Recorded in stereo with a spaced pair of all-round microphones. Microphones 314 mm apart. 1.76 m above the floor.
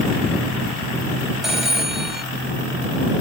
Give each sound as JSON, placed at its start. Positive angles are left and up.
{"t": 1.4, "sound": "a phone ringing", "side_deg": 0}